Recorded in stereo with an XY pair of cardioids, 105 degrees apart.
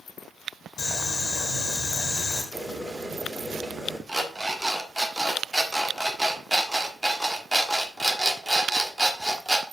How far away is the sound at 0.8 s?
About 2.5 m.